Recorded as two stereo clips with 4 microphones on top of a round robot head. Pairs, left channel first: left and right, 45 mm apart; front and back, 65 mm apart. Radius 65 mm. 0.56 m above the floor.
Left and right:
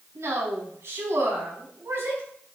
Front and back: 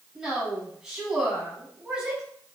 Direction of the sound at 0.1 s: 100° right.